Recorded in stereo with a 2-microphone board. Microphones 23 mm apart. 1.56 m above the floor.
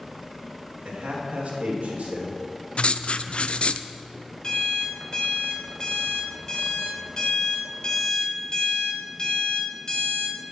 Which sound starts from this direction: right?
A man speaking, at 0.8 s.